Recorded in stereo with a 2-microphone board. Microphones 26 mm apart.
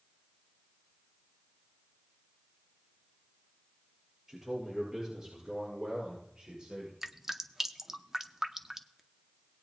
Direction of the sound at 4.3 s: 10° right (ahead or behind).